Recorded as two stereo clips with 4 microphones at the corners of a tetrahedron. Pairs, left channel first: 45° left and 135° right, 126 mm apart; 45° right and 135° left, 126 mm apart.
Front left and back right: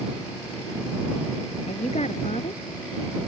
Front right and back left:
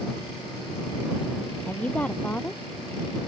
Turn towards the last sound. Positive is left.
turn(degrees=35)